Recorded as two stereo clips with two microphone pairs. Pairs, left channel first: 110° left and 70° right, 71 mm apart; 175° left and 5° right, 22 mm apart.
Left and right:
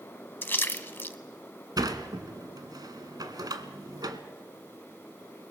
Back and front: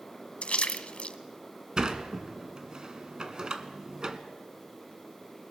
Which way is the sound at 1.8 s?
55° right.